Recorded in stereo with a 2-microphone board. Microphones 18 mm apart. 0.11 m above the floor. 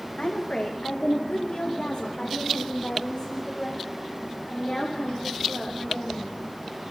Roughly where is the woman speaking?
Left.